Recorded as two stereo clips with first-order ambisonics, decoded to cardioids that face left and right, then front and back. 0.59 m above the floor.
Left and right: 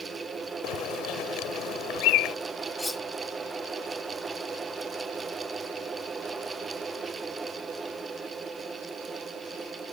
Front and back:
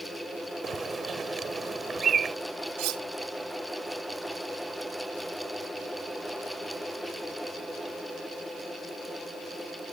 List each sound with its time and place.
0.6 s a bird: 115° left
2.8 s cutlery clinking: 170° left